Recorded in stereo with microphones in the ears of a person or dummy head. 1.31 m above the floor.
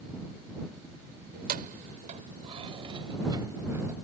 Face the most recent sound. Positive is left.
turn(degrees=-15)  # may be behind; listen again after turning